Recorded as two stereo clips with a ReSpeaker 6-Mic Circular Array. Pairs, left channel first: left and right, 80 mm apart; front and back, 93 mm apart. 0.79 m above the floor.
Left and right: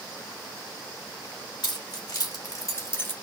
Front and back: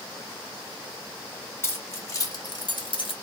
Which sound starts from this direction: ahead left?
Keys jangling, at 1.6 s.